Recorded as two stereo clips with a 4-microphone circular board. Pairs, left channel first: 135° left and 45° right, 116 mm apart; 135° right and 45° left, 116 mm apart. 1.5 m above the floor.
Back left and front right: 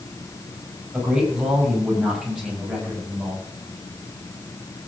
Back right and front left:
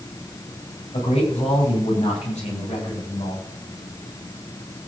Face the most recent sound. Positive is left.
turn(degrees=-130)